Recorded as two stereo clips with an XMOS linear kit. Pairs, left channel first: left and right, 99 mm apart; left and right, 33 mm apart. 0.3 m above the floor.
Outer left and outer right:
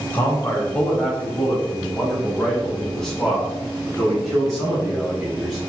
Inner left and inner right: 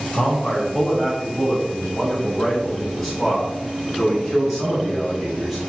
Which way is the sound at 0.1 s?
15° left (ahead or behind).